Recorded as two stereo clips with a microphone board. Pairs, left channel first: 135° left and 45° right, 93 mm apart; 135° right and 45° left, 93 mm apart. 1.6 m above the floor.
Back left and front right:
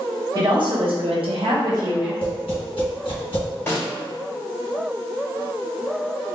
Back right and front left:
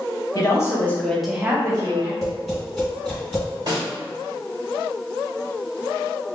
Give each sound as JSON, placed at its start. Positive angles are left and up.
{"t": 0.3, "sound": "a woman speaking", "azimuth_deg": -80, "distance_m": 1.2}
{"t": 2.2, "sound": "tapping", "azimuth_deg": 135, "distance_m": 1.5}
{"t": 3.7, "sound": "a snare drum", "azimuth_deg": 75, "distance_m": 1.9}